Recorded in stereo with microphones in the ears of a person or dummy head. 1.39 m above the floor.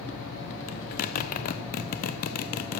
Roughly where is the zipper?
Left.